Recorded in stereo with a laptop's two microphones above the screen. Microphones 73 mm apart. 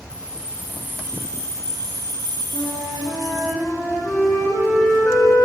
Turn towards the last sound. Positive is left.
turn(degrees=20)  # may be behind; listen again after turning